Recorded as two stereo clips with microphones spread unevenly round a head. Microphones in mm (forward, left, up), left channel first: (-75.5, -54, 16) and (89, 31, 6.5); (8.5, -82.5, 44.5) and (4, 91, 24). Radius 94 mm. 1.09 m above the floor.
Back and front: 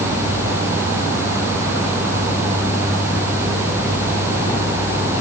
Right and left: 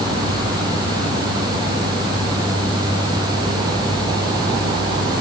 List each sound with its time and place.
Only background noise.